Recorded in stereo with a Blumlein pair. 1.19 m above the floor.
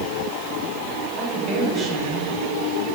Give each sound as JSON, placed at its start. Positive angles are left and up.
{"t": 1.2, "sound": "a woman speaking", "azimuth_deg": -30, "distance_m": 4.5}